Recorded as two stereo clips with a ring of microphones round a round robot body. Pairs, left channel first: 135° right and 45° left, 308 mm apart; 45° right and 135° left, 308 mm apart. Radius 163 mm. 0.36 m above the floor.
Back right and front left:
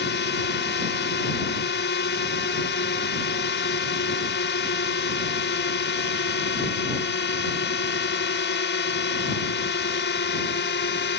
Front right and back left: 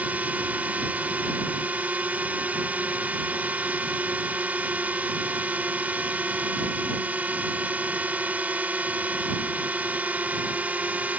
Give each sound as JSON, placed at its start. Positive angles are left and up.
{"t": 0.0, "sound": "a drone", "azimuth_deg": -145}